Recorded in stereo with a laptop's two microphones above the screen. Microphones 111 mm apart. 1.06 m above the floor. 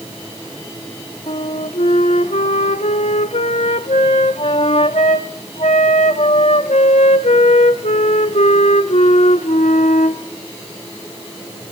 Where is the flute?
85° left, 1.2 m.